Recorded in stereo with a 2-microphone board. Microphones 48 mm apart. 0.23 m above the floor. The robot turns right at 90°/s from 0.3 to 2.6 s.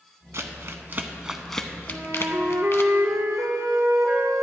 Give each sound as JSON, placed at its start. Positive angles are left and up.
{"t": 0.3, "sound": "crumpling", "side_deg": -60, "distance_m": 0.7}
{"t": 1.9, "sound": "a flute", "azimuth_deg": -140, "distance_m": 1.1}